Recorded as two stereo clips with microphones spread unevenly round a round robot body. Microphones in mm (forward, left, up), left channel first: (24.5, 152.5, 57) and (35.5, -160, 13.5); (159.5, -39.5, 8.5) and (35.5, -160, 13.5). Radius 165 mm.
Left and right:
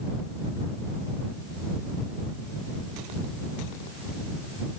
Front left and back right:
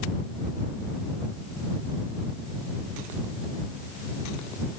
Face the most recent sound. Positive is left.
No sound to turn to.